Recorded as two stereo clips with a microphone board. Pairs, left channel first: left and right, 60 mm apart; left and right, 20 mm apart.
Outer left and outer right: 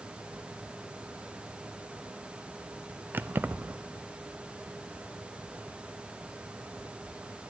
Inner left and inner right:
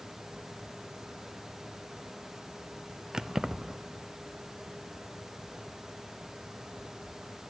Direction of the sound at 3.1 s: 35° right (ahead or behind).